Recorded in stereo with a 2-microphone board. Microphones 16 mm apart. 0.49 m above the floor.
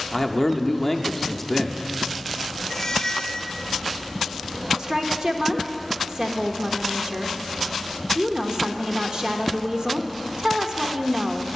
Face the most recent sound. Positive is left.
turn(degrees=-40)  # may be behind; listen again after turning